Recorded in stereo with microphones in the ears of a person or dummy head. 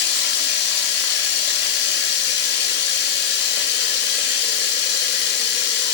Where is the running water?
65° left (ahead or behind), 1.0 m.